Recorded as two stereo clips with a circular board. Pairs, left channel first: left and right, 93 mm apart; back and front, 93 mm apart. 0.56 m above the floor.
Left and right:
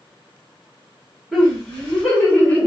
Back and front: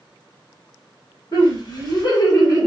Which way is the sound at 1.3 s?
Straight behind.